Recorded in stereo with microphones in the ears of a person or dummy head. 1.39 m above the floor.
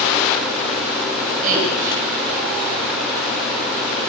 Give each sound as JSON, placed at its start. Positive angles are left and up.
{"t": 1.4, "sound": "a woman speaking", "side_deg": -45, "distance_m": 8.5}